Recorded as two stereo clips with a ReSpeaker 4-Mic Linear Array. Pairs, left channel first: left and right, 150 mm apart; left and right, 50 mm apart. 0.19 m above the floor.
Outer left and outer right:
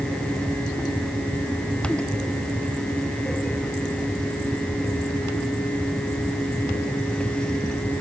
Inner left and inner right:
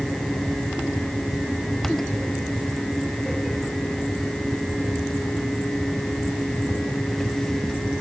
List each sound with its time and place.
Only background noise.